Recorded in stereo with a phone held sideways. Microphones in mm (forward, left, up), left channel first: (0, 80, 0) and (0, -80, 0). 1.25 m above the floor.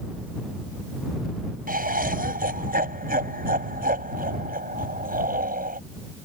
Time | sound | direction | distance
1.7 | laughter | 60° right (ahead or behind) | ?